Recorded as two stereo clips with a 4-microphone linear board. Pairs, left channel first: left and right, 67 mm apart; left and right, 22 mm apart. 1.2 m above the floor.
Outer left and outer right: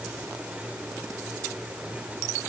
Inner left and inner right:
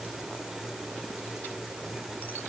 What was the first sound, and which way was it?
Only background noise.